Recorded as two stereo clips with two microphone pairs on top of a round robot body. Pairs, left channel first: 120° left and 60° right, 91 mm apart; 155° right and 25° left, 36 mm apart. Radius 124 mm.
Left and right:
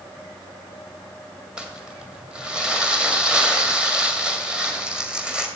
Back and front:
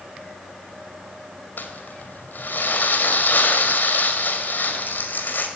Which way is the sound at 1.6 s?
135° right.